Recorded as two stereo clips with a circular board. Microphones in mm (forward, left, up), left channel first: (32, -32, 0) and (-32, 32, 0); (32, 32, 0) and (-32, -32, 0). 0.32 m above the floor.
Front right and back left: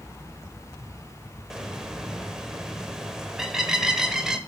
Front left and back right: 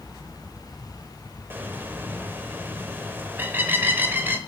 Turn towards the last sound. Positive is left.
turn(degrees=-150)